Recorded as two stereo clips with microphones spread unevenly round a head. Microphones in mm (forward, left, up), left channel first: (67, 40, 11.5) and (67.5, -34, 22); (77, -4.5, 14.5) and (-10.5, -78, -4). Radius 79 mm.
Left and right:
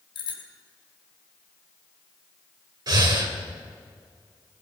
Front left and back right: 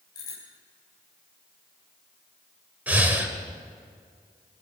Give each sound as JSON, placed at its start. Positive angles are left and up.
{"t": 0.1, "sound": "a bicycle bell", "azimuth_deg": 110, "distance_m": 4.0}
{"t": 2.9, "sound": "breathing", "azimuth_deg": -65, "distance_m": 2.5}